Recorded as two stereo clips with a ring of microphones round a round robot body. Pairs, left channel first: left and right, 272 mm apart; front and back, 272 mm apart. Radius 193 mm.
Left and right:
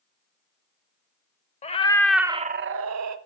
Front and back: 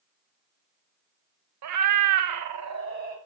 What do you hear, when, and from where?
1.6 s a cat meowing: 160° left, 0.7 m; by 3.2 s 110° right, 0.6 m